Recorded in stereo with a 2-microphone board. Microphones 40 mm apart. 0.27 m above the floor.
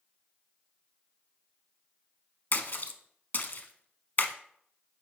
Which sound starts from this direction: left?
A splash, at 2.5 s.